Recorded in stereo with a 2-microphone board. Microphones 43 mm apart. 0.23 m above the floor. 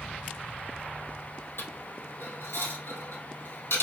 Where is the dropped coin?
65° left (ahead or behind), 1.3 m.